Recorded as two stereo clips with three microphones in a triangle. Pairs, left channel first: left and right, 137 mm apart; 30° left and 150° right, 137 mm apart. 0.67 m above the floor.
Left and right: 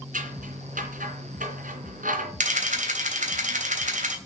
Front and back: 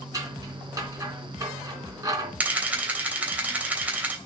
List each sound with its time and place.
0.1 s scissors: 85° right, 3 m
2.4 s a camera shutter: 70° right, 3 m